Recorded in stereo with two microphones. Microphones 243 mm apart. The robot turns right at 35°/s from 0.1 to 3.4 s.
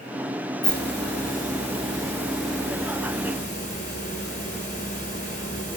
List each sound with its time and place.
0.6 s a hiss: 65° right, 1.8 m; by 5.8 s 35° left, 1.8 m